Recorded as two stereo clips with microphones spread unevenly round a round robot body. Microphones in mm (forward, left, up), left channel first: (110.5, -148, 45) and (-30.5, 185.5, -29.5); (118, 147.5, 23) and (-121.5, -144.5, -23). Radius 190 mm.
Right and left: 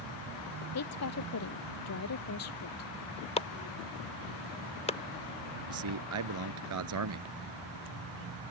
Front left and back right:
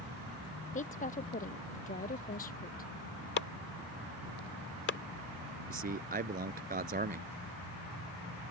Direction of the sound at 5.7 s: 160° left.